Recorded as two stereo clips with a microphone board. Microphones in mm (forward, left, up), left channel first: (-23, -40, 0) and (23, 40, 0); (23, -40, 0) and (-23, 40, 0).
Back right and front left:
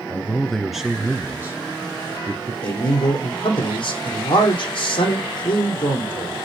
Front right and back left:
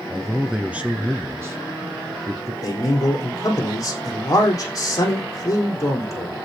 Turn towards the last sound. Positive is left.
turn(degrees=-110)